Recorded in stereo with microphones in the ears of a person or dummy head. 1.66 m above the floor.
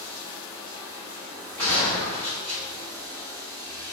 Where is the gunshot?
15° left (ahead or behind), 1.7 m.